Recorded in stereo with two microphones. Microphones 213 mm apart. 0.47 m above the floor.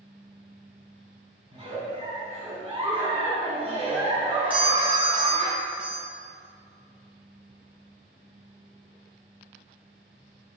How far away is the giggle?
About 3.5 m.